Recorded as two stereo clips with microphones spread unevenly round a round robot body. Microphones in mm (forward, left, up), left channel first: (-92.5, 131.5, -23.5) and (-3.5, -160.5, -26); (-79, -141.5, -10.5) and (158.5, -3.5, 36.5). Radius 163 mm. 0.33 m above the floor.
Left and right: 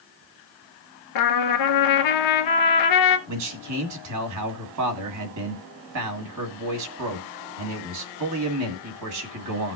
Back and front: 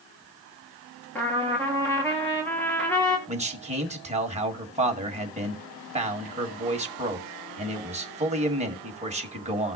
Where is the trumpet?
125° left, 1.2 m.